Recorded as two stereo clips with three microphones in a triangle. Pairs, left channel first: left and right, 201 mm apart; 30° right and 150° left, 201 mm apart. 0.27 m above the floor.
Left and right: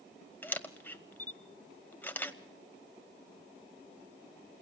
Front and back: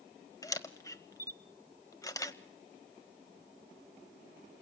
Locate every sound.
0.4 s a camera shutter: 20° left, 1.3 m